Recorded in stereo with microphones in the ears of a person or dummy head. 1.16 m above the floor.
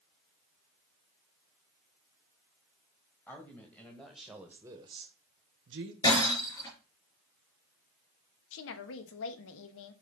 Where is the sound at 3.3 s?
10° left (ahead or behind), 2.0 m; by 5.9 s 55° right (ahead or behind), 1.0 m.